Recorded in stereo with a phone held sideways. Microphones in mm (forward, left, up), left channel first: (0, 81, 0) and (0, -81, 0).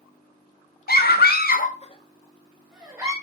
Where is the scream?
70° left (ahead or behind), 0.7 m; by 3.1 s 10° right (ahead or behind), 1.0 m.